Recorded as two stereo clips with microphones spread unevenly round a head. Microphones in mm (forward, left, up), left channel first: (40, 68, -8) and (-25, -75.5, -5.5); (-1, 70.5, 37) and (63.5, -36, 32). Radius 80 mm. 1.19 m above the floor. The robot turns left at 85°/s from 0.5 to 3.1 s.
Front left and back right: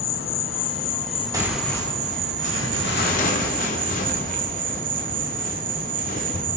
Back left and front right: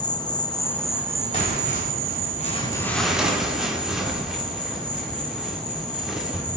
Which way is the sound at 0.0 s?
65° left.